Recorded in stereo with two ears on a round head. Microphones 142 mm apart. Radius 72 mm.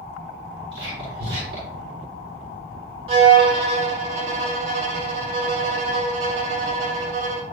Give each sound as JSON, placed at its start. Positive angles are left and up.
{"t": 0.7, "sound": "whispering", "side_deg": -30, "distance_m": 6.5}
{"t": 3.1, "sound": "a violin", "side_deg": -35, "distance_m": 3.5}